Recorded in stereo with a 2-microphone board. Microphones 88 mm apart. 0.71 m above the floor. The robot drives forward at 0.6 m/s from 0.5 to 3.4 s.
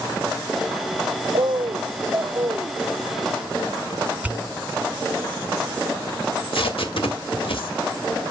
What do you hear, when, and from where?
1.3 s a bird: 60° right (ahead or behind), 0.5 m; by 2.8 s 25° right (ahead or behind), 1.1 m
4.2 s a pop: 15° right (ahead or behind), 1.2 m
6.3 s tape being pulled: 80° left, 2.0 m